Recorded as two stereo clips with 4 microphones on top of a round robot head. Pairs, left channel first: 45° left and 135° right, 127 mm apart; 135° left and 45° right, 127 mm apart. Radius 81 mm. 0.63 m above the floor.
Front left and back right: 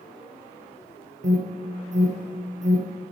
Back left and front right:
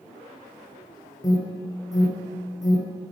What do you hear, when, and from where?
1.2 s an alarm: 165° right, 2.5 m